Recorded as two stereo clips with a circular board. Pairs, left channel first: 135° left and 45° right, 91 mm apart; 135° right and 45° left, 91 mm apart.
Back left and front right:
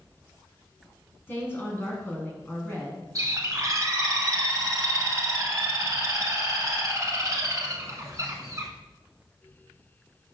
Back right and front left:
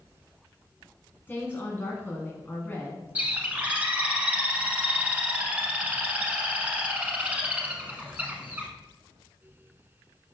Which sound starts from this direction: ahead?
A bird, at 3.1 s.